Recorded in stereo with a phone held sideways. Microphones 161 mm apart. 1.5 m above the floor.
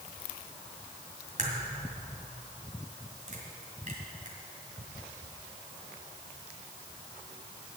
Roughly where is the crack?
Right.